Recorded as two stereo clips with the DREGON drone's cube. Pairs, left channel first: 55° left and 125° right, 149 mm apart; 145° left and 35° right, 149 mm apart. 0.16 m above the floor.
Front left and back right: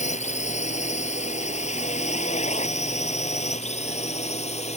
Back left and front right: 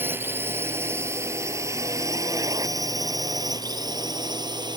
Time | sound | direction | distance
0.0 | a drone | 40° left | ?